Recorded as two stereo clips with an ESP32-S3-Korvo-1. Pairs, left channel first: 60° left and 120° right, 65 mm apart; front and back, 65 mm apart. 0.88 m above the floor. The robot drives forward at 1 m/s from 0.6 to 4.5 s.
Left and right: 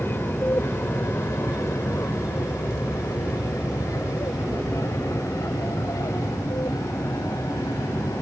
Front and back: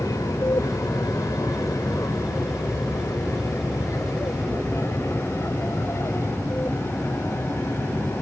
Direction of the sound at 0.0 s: 10° left.